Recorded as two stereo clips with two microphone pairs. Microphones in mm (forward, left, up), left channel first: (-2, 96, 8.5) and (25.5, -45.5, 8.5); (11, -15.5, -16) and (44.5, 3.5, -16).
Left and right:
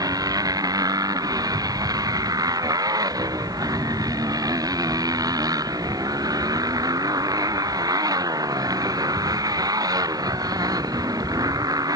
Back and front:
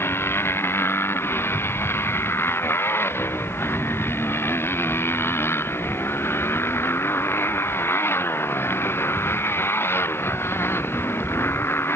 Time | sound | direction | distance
0.0 | a motorcycle | 145° right | ?